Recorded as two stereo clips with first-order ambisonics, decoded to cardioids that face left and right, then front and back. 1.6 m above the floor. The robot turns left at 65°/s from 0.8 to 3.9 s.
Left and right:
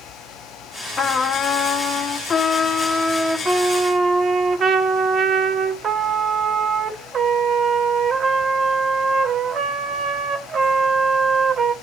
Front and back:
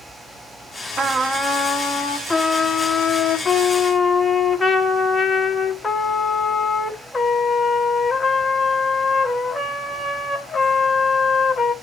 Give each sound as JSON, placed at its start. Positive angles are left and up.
{"t": 1.0, "sound": "a trumpet", "azimuth_deg": 125, "distance_m": 1.0}